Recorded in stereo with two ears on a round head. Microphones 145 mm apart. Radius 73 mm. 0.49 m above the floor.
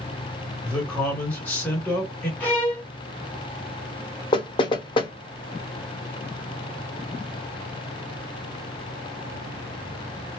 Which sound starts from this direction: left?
Knocking, at 4.3 s.